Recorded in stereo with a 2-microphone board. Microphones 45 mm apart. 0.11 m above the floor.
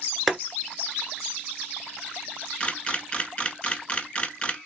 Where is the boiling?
Centre (ahead or behind), 0.9 m.